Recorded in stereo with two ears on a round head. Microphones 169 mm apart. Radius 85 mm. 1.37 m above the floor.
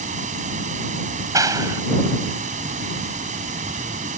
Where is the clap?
15° right (ahead or behind).